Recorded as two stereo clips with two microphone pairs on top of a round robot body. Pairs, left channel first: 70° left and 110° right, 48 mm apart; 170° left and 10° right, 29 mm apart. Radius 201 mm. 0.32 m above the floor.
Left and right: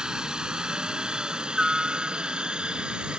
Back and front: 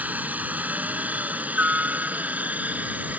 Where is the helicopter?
35° right.